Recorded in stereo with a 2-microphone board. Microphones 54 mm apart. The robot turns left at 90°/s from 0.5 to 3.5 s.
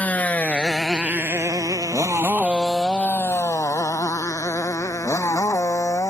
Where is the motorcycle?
30° left (ahead or behind); by 6.1 s 70° left (ahead or behind).